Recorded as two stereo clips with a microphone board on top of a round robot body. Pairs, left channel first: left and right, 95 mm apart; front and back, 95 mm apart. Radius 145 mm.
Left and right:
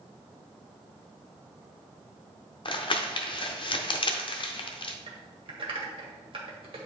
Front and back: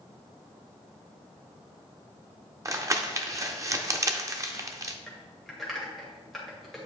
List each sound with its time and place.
2.6 s crumpling: 120° left, 0.8 m
5.1 s typing on a keyboard: 90° right, 1.6 m